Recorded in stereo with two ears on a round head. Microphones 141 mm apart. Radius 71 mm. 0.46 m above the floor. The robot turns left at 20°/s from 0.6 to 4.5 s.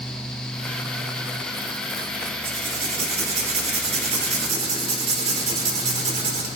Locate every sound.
2.4 s writing: 55° right, 1.6 m; by 6.5 s 100° right, 1.6 m